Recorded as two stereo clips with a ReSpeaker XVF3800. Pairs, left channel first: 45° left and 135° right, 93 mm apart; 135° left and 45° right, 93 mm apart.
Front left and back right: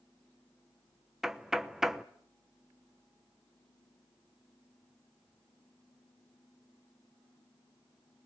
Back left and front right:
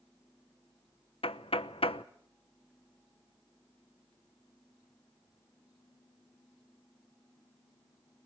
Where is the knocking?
140° left, 0.8 m.